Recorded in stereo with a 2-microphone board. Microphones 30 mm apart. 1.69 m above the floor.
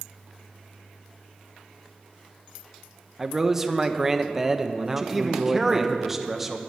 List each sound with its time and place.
3.2 s a man speaking: 10° right (ahead or behind), 0.7 m
5.0 s a man speaking: 5° right (ahead or behind), 1.0 m